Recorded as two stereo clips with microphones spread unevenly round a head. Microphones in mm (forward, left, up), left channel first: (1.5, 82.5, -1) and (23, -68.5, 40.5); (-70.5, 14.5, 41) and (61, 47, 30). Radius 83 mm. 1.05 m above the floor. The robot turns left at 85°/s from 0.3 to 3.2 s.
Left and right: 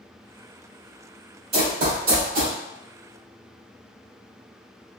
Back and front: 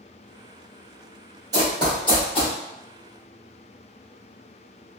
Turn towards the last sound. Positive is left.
turn(degrees=-175)